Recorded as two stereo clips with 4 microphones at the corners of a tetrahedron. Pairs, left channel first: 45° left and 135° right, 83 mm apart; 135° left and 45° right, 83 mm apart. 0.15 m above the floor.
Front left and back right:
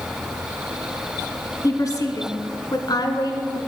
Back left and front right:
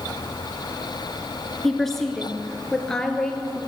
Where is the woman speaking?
50° left, 1.5 m; by 3.6 s 55° left, 2.5 m.